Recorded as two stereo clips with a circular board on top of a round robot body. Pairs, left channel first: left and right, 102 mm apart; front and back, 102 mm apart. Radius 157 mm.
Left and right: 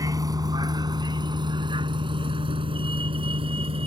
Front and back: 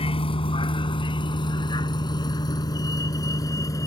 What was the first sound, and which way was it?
A vehicle, 30° right.